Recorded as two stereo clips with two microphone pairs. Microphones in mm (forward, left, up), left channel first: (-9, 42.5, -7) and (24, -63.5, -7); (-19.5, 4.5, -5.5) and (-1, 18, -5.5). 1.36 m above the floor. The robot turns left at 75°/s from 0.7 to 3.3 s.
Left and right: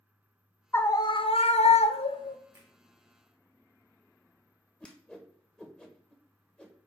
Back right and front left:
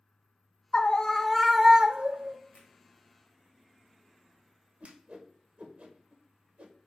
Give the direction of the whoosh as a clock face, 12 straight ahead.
11 o'clock.